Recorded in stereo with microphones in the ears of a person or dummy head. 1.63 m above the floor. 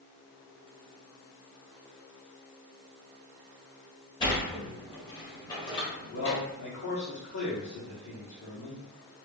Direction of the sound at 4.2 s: 25° left (ahead or behind).